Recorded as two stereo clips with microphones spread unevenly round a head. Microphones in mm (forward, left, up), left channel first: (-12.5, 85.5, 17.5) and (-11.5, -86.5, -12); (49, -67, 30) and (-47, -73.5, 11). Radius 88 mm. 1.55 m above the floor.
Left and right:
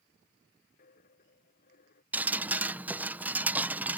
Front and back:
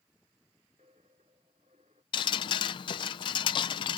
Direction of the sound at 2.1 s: 5° right.